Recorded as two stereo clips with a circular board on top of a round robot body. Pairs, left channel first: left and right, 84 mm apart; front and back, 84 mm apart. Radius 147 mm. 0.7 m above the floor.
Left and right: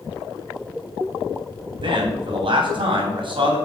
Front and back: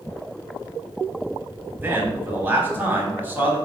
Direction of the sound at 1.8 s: 110° right.